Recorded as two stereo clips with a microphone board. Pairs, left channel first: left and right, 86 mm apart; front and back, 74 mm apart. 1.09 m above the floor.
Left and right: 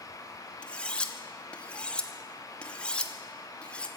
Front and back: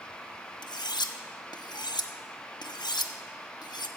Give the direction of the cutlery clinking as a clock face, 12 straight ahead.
12 o'clock.